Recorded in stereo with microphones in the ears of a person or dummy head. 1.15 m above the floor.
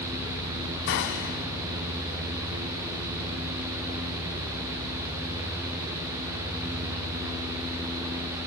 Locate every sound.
0.9 s a gunshot: 55° left (ahead or behind), 1.6 m